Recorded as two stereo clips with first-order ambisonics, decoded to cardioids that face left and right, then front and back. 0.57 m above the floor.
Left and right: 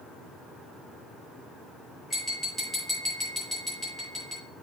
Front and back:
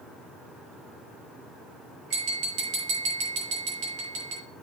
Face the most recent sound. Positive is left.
turn(degrees=-170)